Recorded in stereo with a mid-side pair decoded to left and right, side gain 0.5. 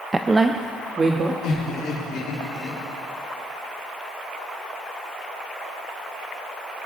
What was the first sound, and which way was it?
A woman speaking, 20° right.